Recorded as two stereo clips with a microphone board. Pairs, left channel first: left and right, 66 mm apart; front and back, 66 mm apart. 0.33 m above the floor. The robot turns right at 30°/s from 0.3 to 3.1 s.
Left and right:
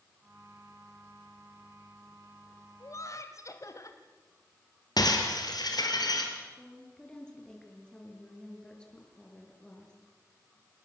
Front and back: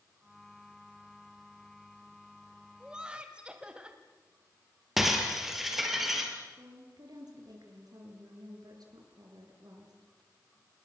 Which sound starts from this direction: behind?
A woman speaking, at 6.6 s.